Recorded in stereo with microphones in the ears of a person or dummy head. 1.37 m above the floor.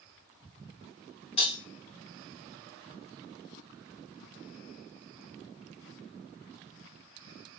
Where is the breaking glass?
30° left (ahead or behind), 1.2 m.